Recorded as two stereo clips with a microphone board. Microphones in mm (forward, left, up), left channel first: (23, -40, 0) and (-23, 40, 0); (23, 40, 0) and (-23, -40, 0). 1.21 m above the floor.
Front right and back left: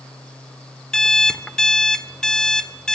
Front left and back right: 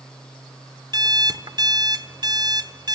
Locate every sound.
0.9 s an alarm clock: 140° right, 1.2 m